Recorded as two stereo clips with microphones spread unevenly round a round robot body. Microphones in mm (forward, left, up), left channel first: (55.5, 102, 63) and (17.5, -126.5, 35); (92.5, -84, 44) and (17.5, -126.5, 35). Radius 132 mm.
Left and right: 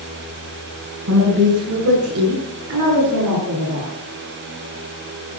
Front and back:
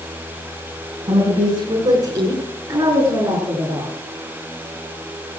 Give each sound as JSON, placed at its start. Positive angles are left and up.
{"t": 1.1, "sound": "a woman speaking", "azimuth_deg": -115, "distance_m": 5.5}